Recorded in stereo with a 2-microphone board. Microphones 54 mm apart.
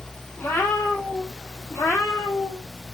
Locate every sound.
0.4 s a cat meowing: 40° left (ahead or behind), 1.3 m; by 2.7 s 70° left (ahead or behind), 2 m